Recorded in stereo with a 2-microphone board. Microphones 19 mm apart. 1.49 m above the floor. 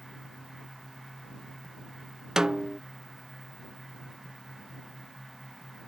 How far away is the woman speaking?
I don't hear a woman speaking.